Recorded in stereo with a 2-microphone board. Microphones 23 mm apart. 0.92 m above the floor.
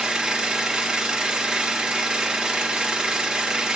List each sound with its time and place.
0.0 s an engine running: 35° right (ahead or behind), 0.9 m